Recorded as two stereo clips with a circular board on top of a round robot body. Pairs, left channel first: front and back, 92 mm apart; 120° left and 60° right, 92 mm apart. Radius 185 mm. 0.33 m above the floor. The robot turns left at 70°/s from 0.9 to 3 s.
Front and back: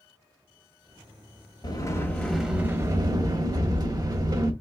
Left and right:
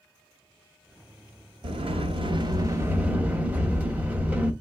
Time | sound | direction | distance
1.6 | a sliding door | 40° right | 1.4 m